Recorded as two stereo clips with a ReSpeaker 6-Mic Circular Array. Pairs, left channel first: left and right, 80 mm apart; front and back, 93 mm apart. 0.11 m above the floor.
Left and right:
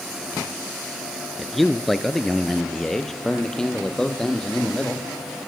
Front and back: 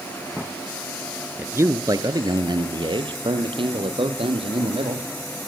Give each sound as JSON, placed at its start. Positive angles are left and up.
{"t": 1.4, "sound": "a man speaking", "azimuth_deg": 180, "distance_m": 1.2}